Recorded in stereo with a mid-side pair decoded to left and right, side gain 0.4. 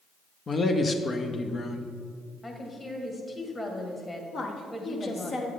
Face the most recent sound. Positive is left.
turn(degrees=55)